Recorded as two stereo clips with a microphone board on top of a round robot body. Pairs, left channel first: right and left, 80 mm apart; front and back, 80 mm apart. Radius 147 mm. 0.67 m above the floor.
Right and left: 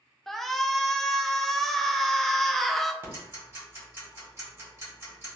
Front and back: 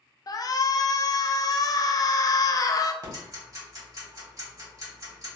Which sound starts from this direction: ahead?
A shout, at 0.3 s.